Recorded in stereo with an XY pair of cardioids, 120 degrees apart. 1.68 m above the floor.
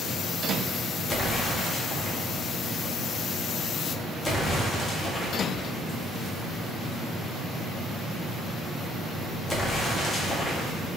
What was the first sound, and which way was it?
An explosion, 20° left.